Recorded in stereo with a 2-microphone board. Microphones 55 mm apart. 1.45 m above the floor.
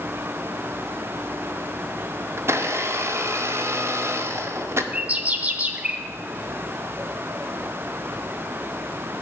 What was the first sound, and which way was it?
A blender, 50° right (ahead or behind).